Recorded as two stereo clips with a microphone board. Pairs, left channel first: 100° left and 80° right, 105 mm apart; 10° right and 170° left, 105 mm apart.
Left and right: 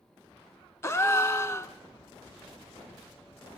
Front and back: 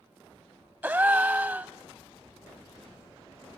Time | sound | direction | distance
0.8 | a gasp | 115° left | 0.7 m